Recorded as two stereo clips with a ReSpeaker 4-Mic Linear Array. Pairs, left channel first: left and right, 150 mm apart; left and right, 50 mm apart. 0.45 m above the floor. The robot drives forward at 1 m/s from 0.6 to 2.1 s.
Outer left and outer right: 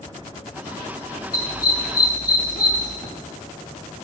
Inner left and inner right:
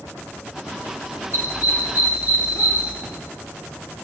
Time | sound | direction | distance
1.3 | a dog barking | 80° left | 3.5 m
3.0 | an explosion | 20° left (ahead or behind) | 3.5 m